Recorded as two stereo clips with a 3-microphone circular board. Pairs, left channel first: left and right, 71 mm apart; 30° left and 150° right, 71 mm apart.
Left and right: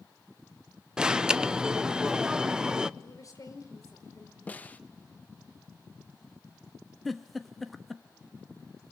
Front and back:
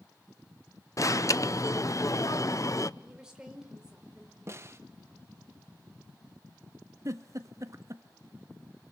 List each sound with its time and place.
1.0 s an alarm: 10° right, 0.7 m
3.0 s a woman speaking: 130° left, 4.5 m
4.5 s a snare drum: 160° left, 1.2 m
7.0 s a giggle: straight behind, 1.3 m